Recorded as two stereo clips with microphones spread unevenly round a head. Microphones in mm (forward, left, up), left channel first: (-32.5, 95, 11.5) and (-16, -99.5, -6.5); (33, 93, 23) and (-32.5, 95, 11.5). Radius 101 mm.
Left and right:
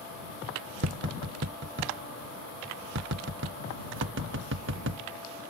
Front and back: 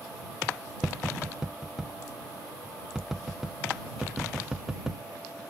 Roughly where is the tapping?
Right.